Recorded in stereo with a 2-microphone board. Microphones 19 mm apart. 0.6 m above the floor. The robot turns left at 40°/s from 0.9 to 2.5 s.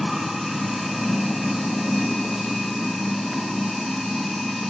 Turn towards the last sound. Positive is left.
turn(degrees=120)